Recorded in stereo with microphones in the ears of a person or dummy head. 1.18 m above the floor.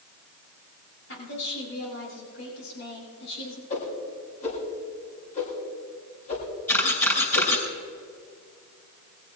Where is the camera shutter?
15° left (ahead or behind), 5 m.